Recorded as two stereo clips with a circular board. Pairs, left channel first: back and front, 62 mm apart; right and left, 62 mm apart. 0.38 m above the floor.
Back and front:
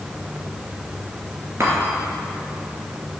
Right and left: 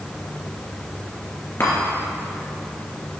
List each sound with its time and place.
1.6 s a chime: 45° right, 2.5 m